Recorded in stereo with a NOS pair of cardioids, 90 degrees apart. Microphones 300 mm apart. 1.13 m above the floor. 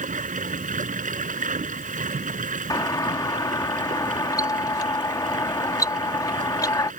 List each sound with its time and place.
0.0 s running water: 25° right
2.7 s a doorbell: 10° left